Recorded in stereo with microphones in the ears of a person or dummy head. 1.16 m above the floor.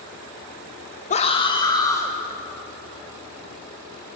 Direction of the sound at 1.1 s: 30° left (ahead or behind).